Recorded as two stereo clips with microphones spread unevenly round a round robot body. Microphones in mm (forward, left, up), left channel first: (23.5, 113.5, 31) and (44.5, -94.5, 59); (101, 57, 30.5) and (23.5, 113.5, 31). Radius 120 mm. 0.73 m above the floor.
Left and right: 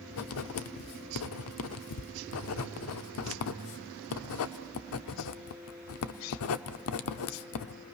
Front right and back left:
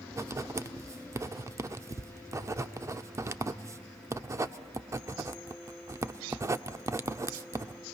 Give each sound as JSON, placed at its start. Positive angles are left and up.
{"t": 0.1, "sound": "writing", "azimuth_deg": 80, "distance_m": 0.8}